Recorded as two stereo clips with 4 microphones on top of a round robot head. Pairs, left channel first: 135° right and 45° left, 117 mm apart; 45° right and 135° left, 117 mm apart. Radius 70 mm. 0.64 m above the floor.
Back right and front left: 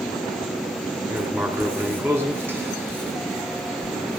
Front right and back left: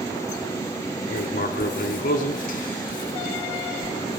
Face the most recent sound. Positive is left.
turn(degrees=-30)